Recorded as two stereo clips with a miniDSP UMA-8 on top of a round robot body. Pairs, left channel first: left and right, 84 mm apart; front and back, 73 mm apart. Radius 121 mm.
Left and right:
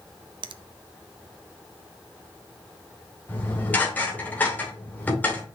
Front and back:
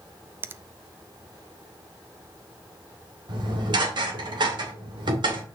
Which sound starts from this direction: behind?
Dishes clattering, at 3.3 s.